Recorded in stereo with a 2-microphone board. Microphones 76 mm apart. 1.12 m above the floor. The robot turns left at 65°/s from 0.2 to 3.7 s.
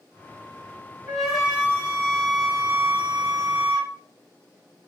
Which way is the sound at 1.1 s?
10° left.